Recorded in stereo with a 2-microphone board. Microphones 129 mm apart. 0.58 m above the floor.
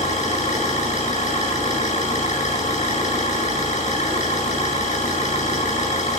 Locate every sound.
0.0 s an engine running: 70° left (ahead or behind), 7 m